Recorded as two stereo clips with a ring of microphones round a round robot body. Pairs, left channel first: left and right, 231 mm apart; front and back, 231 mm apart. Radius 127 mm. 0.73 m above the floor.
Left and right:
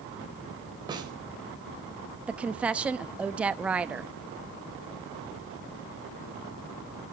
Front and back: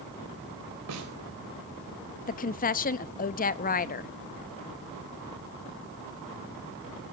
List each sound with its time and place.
0.9 s a snare drum: 160° right, 4 m
2.3 s a woman speaking: 10° right, 0.7 m